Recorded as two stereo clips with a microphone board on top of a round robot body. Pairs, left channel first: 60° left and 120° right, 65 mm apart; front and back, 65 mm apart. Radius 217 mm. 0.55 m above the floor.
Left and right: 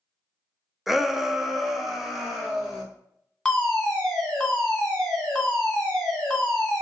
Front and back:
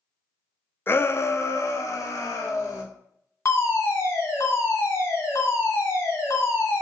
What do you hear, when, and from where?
0.9 s a shout: 35° right, 0.6 m
3.5 s a fire alarm: 25° right, 2.0 m